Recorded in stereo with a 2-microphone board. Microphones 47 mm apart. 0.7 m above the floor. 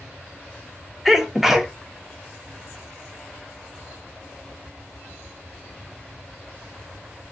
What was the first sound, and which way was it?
A sneeze, 5° right (ahead or behind).